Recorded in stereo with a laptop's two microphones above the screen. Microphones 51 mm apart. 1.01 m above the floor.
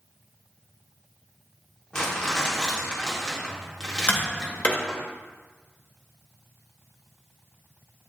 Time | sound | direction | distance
1.9 | crumpling | 20° left (ahead or behind) | 1.1 m
4.1 | tapping | 35° left (ahead or behind) | 0.8 m